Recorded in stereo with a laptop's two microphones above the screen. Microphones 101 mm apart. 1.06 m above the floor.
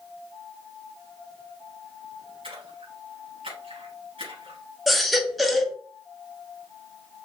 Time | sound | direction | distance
2.4 | a splash | 75° right (ahead or behind) | 3.5 m
4.9 | a baby crying | centre (ahead or behind) | 1.0 m